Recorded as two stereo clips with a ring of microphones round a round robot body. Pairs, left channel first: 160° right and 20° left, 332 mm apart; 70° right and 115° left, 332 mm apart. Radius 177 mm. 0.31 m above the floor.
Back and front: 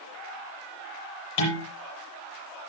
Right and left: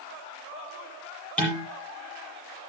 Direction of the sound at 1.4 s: 155° right.